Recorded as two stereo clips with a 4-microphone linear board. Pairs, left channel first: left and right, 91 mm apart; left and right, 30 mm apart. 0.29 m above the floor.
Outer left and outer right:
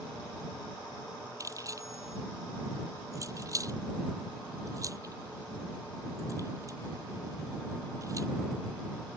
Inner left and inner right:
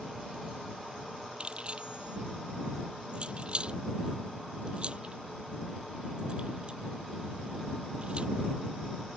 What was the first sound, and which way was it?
Keys jangling, 35° right (ahead or behind).